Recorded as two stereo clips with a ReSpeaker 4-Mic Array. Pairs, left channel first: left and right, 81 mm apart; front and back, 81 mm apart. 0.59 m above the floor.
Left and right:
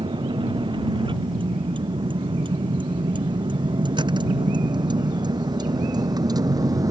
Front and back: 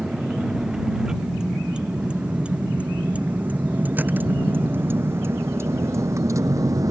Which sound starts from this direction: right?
A vehicle, at 0.0 s.